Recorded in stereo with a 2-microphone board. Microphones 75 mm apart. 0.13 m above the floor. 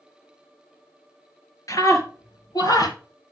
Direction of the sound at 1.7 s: 50° left (ahead or behind).